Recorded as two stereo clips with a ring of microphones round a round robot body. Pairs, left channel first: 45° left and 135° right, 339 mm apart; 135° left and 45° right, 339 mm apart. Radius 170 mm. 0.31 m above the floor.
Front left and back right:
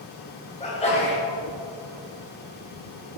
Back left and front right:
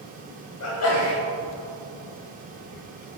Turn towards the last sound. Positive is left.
turn(degrees=110)